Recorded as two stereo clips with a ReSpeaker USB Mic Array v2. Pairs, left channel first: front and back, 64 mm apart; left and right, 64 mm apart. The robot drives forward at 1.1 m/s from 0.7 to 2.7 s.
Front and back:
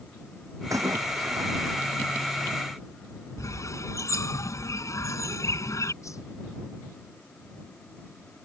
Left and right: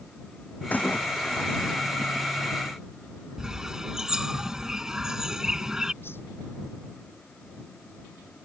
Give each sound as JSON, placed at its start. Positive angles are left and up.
{"t": 0.7, "sound": "a splash", "azimuth_deg": 155}
{"t": 3.4, "sound": "a bird", "azimuth_deg": -10}
{"t": 6.0, "sound": "a whoosh", "azimuth_deg": 35}